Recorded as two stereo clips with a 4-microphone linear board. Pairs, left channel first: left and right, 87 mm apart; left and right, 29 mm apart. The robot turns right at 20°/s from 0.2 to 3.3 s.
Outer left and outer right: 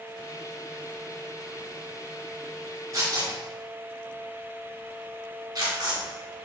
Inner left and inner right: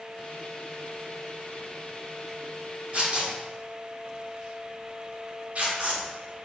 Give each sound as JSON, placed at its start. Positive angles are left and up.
{"t": 2.9, "sound": "tearing paper", "side_deg": -35, "distance_m": 3.0}